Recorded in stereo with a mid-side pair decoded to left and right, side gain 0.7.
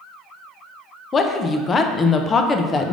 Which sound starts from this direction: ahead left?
A woman speaking, at 1.1 s.